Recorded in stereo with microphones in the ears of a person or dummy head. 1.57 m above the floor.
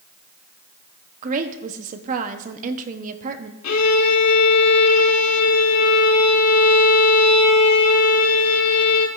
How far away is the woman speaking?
About 0.9 m.